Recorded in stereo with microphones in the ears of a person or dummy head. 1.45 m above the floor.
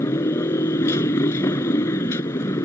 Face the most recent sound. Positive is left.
turn(degrees=20)  # may be behind; listen again after turning